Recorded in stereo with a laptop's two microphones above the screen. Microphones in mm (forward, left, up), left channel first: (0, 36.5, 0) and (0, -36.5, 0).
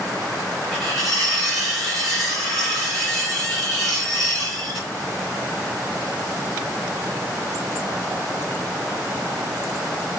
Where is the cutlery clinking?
5° left (ahead or behind), 1.8 m.